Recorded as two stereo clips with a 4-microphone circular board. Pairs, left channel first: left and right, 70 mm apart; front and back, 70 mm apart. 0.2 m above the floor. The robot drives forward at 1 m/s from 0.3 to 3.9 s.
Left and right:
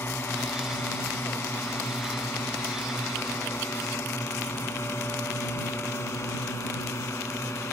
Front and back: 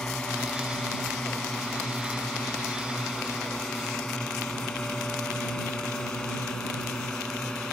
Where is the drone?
70° left; by 7.7 s 75° left.